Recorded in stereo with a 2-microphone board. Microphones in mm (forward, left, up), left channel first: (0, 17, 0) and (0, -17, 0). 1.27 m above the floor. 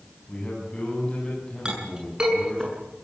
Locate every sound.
0.3 s a man speaking: 25° left (ahead or behind), 9.5 m
1.6 s a clink: 25° right (ahead or behind), 8 m